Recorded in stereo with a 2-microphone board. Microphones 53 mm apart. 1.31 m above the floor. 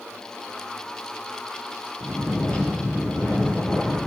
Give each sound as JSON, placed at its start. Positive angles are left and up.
{"t": 2.0, "sound": "snoring", "side_deg": 20, "distance_m": 8.5}